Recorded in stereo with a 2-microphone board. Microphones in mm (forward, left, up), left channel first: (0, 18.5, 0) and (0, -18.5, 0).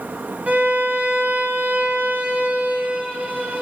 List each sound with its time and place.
0.5 s a violin: 50° right (ahead or behind), 1.3 m